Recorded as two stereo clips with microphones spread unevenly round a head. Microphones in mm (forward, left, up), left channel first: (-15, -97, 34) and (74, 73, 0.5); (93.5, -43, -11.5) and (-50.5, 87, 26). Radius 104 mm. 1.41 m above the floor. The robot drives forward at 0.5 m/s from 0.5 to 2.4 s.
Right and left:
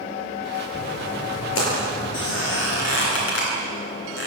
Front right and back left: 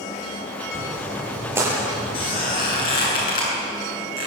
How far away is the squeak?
About 9 m.